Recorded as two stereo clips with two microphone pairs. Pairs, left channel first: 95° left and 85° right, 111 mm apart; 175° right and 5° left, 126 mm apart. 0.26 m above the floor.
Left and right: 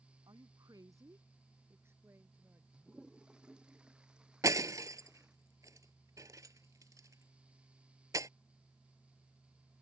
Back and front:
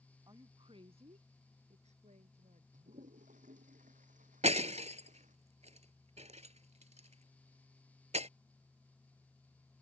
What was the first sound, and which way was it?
A woman speaking, 45° right.